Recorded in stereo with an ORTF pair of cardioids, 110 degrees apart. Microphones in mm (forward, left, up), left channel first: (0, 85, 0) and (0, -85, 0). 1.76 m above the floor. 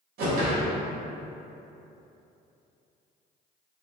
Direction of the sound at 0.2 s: 55° right.